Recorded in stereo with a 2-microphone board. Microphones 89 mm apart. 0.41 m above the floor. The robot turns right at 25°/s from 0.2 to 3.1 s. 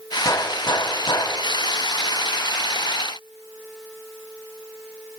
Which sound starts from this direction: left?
A gunshot, at 0.2 s.